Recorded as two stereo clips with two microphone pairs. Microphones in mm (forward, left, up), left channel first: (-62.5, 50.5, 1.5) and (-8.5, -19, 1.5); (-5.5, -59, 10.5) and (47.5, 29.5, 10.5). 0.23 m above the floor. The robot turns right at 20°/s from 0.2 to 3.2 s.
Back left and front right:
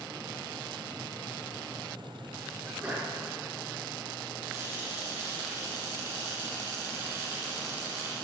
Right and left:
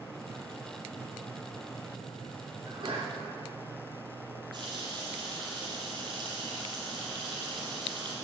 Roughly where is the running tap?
Ahead.